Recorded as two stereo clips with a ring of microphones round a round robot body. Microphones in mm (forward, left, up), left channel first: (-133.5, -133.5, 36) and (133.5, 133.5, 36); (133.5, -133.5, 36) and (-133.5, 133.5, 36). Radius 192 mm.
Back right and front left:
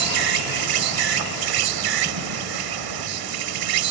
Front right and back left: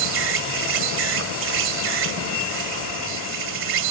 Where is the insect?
75° left.